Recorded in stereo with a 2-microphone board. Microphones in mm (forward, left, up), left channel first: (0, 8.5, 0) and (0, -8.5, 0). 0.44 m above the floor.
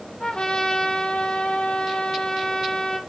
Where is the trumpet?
85° left, 2.5 m.